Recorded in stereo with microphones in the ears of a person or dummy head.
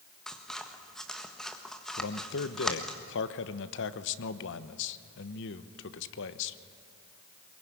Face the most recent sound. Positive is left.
turn(degrees=65)  # may be behind; listen again after turning